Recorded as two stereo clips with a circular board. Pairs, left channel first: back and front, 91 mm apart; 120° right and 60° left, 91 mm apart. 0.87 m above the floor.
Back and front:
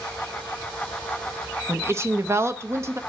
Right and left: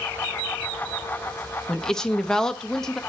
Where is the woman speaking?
40° right, 0.8 m.